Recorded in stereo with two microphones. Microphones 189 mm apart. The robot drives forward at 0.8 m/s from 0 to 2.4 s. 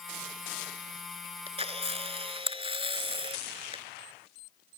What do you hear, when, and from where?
1.5 s a camera shutter: 30° right (ahead or behind)